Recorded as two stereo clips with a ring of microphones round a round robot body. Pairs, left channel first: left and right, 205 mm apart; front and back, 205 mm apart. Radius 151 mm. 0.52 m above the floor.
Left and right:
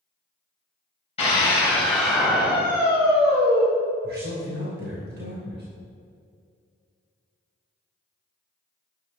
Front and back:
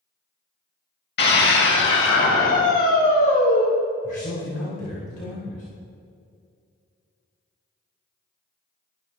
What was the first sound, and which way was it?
A scream, 25° left.